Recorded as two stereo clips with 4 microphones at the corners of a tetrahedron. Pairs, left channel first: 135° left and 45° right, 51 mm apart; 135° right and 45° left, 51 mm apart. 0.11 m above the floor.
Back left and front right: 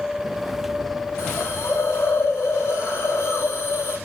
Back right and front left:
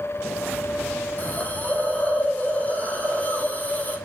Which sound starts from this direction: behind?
A hiss, at 1.2 s.